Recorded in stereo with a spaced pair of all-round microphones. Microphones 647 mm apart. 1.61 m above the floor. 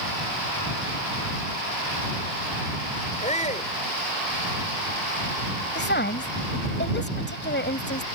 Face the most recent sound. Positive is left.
turn(degrees=15)  # may be behind; listen again after turning